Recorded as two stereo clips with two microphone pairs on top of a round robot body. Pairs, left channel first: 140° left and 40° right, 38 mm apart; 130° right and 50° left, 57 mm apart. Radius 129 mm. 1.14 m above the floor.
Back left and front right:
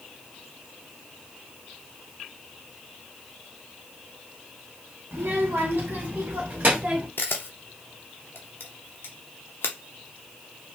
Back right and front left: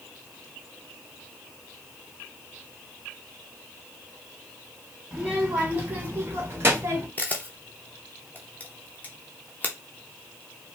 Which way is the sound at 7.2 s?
165° left.